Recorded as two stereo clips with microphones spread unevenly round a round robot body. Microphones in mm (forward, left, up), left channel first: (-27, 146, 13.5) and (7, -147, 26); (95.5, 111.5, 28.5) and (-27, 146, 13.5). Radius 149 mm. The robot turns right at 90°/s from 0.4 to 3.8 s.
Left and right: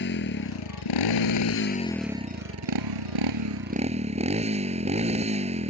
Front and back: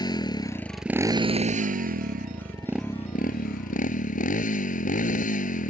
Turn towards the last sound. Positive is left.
turn(degrees=-15)